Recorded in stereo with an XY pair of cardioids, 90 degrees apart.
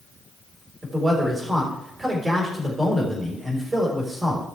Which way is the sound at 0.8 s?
30° right.